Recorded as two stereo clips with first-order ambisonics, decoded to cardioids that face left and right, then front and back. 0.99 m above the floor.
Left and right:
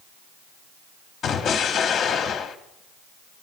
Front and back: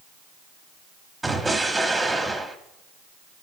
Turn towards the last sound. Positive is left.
turn(degrees=105)